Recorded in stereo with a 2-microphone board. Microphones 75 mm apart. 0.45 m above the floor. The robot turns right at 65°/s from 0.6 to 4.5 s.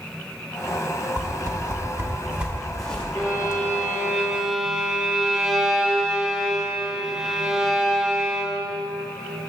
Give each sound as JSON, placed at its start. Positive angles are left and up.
{"t": 1.2, "sound": "a whoosh", "side_deg": -55, "distance_m": 1.0}
{"t": 3.1, "sound": "a violin", "azimuth_deg": 100, "distance_m": 1.7}